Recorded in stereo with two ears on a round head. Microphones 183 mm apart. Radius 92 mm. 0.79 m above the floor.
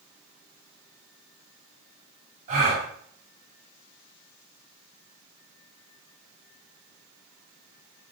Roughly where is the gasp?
Right.